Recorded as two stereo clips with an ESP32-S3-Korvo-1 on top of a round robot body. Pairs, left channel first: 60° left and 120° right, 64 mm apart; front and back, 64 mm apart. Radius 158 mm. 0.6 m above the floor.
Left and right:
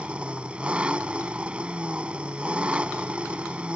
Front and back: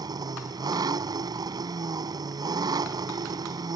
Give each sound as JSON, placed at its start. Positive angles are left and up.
{"t": 0.0, "sound": "an engine running", "azimuth_deg": 170}